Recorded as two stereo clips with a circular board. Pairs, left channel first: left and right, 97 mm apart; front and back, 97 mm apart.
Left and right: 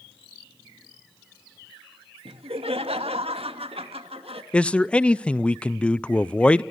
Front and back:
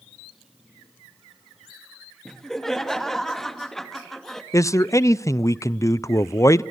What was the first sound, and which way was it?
Laughter, 85° right.